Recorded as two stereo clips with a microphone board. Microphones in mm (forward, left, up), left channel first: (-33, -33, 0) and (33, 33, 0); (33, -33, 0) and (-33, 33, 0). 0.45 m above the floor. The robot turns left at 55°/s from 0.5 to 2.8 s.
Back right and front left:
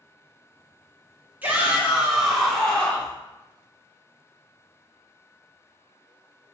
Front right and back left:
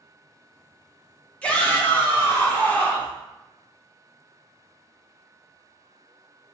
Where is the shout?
5° left, 0.7 m; by 3.1 s 70° right, 0.7 m.